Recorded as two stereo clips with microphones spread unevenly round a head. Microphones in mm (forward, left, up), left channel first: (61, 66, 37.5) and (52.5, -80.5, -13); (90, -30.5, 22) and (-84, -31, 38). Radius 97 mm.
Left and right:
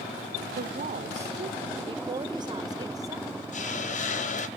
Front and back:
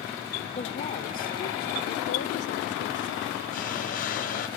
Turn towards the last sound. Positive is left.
turn(degrees=55)